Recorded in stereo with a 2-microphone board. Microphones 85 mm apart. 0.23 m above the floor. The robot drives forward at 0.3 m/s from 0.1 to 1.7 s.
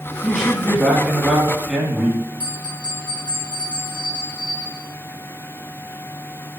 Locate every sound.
0.2 s a man speaking: 5° right (ahead or behind), 1.6 m
2.4 s a bell: 20° left (ahead or behind), 2.5 m